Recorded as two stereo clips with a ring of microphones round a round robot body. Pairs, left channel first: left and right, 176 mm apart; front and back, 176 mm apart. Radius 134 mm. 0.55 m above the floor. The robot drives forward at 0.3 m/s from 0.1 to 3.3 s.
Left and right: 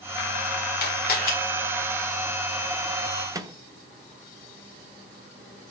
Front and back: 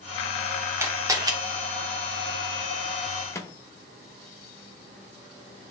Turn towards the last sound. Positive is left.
turn(degrees=-50)